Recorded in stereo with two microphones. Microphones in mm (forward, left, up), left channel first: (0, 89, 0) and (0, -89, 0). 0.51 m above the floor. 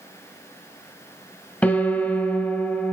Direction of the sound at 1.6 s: 10° left (ahead or behind).